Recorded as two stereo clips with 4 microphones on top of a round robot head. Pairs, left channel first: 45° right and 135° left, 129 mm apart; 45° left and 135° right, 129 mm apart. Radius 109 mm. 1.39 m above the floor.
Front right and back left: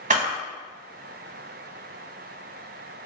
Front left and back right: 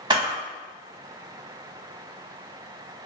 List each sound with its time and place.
0.1 s a camera shutter: 165° left, 0.7 m